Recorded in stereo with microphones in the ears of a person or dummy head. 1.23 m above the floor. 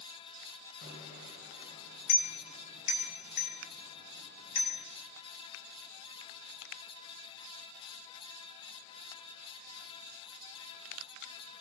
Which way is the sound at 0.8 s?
50° left (ahead or behind).